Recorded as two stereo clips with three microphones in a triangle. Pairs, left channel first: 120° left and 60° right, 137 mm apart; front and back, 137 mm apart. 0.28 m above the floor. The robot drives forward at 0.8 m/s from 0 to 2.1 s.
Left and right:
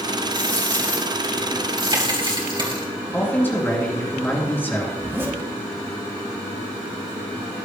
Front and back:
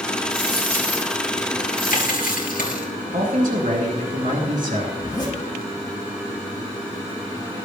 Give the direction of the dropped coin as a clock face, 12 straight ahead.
12 o'clock.